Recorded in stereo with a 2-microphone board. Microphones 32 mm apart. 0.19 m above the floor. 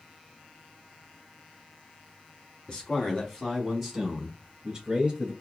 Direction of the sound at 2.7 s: 30° left (ahead or behind).